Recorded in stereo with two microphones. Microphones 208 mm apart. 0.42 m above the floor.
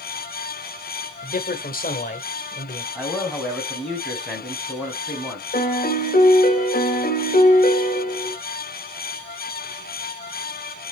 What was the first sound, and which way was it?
A man speaking, 45° left (ahead or behind).